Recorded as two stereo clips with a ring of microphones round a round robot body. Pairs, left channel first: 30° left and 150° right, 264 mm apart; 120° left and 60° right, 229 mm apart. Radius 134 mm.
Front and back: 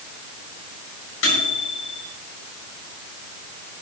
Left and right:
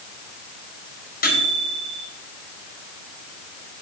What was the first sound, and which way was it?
A microwave, 70° left.